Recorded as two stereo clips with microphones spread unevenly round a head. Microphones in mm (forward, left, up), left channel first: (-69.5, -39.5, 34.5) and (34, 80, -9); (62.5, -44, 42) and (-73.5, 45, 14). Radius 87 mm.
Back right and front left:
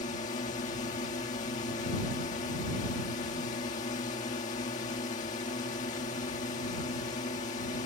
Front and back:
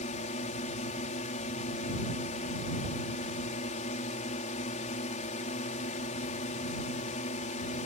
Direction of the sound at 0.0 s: 80° right.